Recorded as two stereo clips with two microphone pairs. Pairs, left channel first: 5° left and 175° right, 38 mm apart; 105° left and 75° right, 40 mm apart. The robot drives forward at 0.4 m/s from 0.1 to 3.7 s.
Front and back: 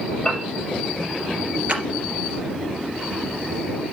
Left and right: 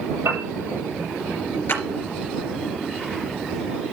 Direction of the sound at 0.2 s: 70° right.